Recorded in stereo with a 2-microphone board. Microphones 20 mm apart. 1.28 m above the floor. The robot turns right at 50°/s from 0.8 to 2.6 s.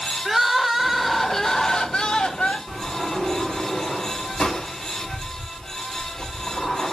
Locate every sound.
0.2 s crying: 10° right, 1.5 m; by 2.6 s 80° left, 1.5 m
2.7 s a sliding door: 65° left (ahead or behind), 6.5 m